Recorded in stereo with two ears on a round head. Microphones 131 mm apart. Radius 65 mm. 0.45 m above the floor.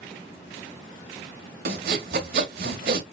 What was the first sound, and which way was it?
Sawing, 70° right (ahead or behind).